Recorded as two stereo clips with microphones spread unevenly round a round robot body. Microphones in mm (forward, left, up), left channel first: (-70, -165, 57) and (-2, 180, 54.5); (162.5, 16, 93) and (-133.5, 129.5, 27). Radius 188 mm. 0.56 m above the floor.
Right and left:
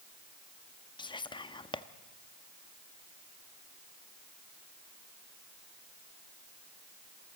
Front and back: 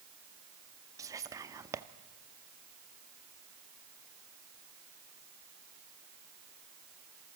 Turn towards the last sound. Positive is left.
turn(degrees=-165)